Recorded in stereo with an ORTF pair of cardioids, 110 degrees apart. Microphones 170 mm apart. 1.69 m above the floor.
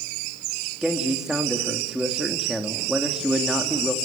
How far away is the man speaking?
About 3.5 m.